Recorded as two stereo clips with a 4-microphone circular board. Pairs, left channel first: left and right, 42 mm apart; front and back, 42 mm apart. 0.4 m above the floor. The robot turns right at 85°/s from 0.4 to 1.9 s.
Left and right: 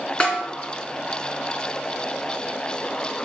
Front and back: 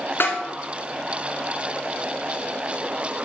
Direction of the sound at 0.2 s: 30° left.